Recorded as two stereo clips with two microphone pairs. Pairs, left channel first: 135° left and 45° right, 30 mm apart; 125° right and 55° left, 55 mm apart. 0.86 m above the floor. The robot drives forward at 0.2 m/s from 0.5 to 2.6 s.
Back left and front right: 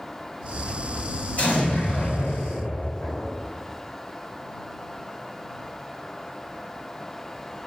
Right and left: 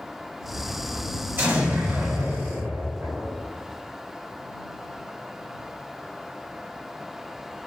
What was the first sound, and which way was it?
An explosion, 105° left.